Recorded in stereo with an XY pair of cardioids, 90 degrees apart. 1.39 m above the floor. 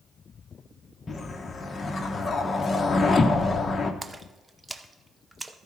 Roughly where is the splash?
Ahead.